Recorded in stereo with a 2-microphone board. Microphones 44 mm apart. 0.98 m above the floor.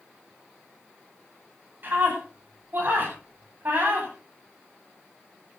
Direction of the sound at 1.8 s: 50° right (ahead or behind).